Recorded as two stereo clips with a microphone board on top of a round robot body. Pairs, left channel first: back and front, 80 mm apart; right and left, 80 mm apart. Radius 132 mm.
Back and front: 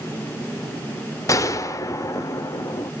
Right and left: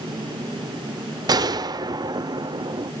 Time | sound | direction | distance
1.3 | a gunshot | 130° left | 1.3 m